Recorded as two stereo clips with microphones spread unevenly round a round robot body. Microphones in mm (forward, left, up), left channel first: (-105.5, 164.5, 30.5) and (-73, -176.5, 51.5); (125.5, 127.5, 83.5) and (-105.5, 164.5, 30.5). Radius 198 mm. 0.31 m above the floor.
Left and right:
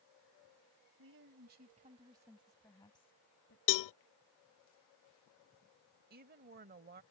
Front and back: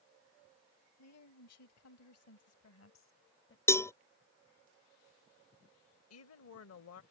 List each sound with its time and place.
1.0 s a woman speaking: 30° right; by 3.6 s 35° left
3.7 s a cowbell: 80° left
6.1 s a woman speaking: 20° right